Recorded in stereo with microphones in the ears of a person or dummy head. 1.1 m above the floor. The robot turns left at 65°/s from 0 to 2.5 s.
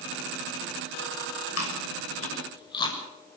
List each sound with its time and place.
1.6 s chewing: 85° left, 6.5 m; by 3.0 s 25° left (ahead or behind), 6.5 m